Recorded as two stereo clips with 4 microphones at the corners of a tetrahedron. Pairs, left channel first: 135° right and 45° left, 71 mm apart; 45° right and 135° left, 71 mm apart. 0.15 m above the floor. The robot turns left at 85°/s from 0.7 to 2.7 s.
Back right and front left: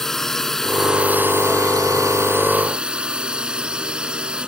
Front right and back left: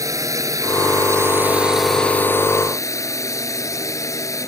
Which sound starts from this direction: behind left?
A drone, at 0.0 s.